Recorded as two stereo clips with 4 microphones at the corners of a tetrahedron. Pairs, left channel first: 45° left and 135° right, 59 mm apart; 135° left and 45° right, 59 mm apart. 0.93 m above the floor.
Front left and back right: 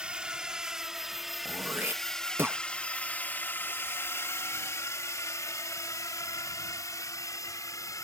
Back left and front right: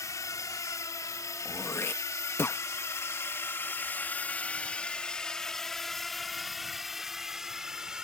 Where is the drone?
150° left; by 8.1 s 35° left.